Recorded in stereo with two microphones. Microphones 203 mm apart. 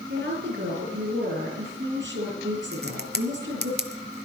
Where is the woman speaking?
70° right (ahead or behind), 5.5 m.